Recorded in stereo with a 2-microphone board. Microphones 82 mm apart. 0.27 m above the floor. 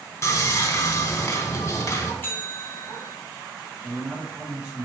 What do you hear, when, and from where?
0.2 s sawing: 35° left (ahead or behind), 0.9 m
2.2 s a bell: 25° left (ahead or behind), 1.2 m
3.8 s a man speaking: 10° right (ahead or behind), 1.5 m